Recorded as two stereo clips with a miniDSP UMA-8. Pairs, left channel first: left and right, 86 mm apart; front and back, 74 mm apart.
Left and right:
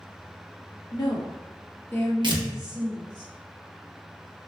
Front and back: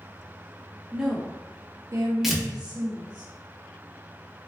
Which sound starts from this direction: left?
A woman speaking, at 0.9 s.